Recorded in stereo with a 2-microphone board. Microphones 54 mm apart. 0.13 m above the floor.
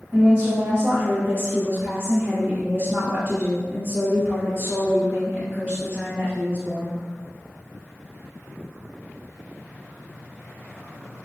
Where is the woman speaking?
25° right (ahead or behind), 1.4 m.